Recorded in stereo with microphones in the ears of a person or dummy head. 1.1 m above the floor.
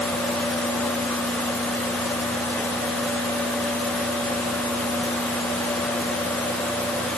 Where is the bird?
I don't hear a bird.